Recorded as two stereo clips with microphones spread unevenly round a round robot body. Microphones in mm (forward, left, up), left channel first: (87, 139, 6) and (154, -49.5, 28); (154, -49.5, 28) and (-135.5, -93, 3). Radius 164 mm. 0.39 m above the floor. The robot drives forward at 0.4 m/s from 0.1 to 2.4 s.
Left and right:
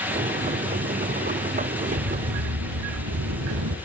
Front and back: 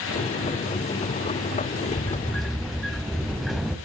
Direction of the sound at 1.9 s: 65° right.